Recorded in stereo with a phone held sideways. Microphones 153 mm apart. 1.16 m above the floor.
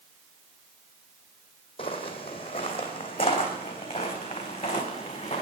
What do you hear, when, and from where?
1.8 s footsteps: 40° left (ahead or behind), 2.5 m